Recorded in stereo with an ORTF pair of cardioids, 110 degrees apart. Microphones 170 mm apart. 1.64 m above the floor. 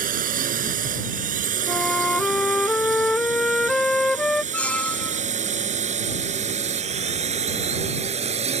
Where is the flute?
5° left.